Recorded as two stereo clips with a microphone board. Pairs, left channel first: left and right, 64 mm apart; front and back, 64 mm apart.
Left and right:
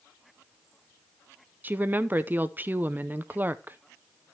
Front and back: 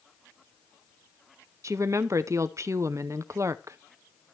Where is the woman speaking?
150° right, 0.5 m.